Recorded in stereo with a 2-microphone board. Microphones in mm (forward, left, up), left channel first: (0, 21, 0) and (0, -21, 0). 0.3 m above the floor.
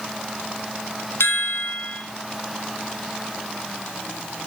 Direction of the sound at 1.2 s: 70° left (ahead or behind).